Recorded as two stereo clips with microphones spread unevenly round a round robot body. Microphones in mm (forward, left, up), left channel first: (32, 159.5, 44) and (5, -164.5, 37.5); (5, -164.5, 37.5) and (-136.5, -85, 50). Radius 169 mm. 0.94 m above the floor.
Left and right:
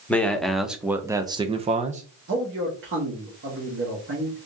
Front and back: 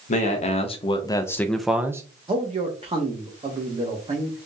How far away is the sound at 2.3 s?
About 1.2 m.